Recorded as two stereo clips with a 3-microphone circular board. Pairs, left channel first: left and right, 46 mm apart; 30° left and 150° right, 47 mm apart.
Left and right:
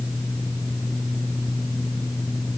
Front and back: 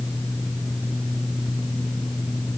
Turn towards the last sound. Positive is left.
No sound to turn to.